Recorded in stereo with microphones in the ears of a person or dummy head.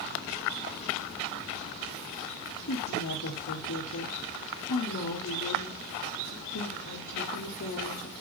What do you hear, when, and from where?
2.7 s a woman speaking: 55° left (ahead or behind), 2.0 m